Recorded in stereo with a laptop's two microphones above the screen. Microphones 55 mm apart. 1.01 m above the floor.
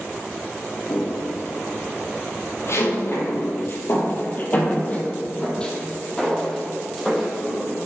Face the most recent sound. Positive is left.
turn(degrees=0)  # may be behind; listen again after turning